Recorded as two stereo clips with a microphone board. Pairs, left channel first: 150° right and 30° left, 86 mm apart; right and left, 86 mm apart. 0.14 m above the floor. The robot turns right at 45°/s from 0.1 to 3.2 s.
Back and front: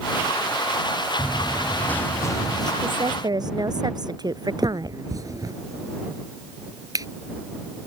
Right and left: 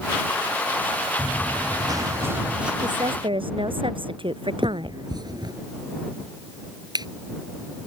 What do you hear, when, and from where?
1.2 s running footsteps: 110° left; by 2.7 s 170° left
2.8 s a woman speaking: 55° left; by 5.0 s 70° left
4.6 s a finger snap: 70° left